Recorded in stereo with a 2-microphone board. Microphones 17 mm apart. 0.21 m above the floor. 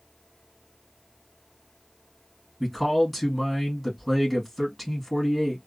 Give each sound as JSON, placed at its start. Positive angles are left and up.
{"t": 2.6, "sound": "a man speaking", "side_deg": -5, "distance_m": 1.8}